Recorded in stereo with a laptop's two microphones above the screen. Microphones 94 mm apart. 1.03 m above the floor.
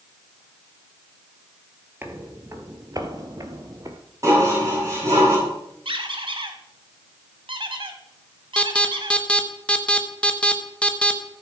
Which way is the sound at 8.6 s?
10° left (ahead or behind).